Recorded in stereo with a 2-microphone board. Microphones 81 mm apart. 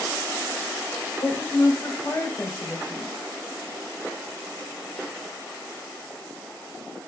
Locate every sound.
1.2 s a woman speaking: 35° left (ahead or behind), 1.7 m